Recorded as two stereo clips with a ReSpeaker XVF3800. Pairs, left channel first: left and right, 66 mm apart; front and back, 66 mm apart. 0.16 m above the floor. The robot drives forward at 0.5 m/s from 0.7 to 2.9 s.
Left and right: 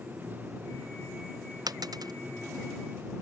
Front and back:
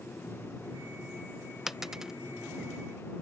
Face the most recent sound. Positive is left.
turn(degrees=-100)